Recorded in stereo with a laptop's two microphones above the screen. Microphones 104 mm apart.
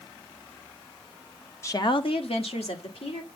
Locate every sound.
1.6 s a woman speaking: 25° left (ahead or behind), 0.6 m; by 3.3 s 80° left, 2.5 m